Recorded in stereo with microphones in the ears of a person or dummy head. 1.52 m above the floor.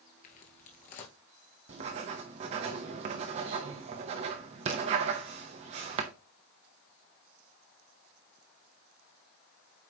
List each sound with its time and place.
0.2 s footsteps: 35° left (ahead or behind), 1.7 m
1.7 s writing: 30° right (ahead or behind), 0.8 m